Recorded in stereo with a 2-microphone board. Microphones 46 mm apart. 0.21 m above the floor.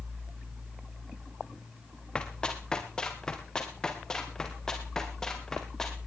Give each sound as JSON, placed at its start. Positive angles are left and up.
{"t": 2.1, "sound": "running footsteps", "side_deg": 20, "distance_m": 3.5}